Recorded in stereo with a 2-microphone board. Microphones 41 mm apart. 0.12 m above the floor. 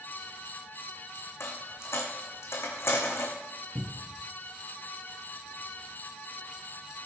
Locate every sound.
1.4 s a dropped coin: 80° left, 3 m
3.8 s a cupboard door: 40° right (ahead or behind), 1.1 m